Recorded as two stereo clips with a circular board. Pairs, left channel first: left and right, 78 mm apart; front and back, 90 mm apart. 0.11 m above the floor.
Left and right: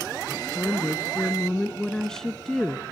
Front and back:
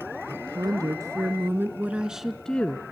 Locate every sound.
0.3 s a woman speaking: 160° left, 2 m; by 2.8 s straight ahead, 1.2 m